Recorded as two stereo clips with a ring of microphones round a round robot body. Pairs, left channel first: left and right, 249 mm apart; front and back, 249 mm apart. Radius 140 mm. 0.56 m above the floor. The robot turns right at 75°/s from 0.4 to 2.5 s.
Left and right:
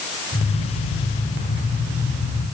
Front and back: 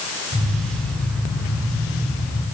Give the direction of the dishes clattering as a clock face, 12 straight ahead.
I don't hear dishes clattering.